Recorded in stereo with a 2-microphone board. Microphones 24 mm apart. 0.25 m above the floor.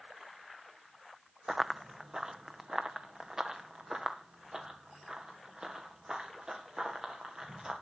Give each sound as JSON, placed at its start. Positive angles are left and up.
{"t": 1.5, "sound": "running footsteps", "side_deg": -15, "distance_m": 0.5}